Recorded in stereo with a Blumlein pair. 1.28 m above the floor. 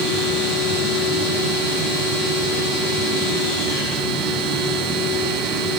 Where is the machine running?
Straight ahead, 3.5 m.